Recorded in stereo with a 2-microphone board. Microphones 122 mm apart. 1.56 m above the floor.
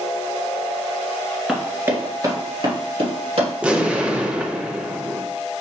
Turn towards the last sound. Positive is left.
turn(degrees=-10)  # may be behind; listen again after turning